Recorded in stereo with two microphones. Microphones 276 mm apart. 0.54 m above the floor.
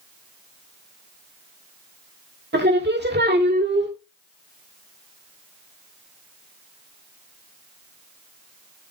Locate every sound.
2.5 s singing: 40° right (ahead or behind), 1.6 m